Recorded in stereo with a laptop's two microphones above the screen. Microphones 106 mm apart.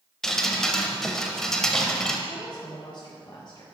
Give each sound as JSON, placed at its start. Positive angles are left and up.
{"t": 0.2, "sound": "dripping", "side_deg": 5, "distance_m": 0.7}
{"t": 2.3, "sound": "a woman speaking", "side_deg": 40, "distance_m": 0.7}